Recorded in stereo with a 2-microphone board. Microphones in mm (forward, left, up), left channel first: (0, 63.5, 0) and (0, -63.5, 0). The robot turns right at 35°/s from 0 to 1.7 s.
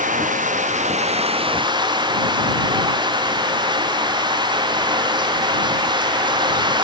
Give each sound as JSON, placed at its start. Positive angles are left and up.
{"t": 0.0, "sound": "running water", "azimuth_deg": -95}